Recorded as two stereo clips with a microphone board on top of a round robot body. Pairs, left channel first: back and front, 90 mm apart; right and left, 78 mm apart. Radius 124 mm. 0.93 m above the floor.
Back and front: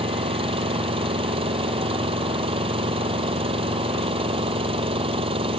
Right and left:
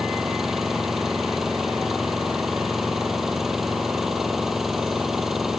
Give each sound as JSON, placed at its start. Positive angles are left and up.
{"t": 0.0, "sound": "an engine running", "azimuth_deg": 5}